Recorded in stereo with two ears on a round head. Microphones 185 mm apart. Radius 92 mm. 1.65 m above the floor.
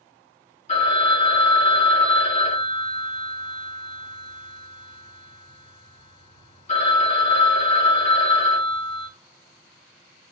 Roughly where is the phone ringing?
Left.